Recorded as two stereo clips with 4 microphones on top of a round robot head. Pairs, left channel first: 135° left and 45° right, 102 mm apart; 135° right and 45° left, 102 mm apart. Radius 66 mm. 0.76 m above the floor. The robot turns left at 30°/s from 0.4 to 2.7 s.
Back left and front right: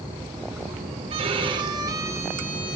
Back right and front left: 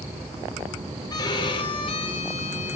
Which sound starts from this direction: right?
A violin, at 1.1 s.